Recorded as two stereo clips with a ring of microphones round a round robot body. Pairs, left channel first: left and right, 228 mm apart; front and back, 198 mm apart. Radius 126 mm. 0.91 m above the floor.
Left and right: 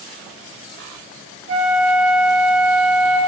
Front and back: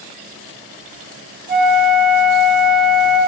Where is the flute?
130° right, 0.7 m.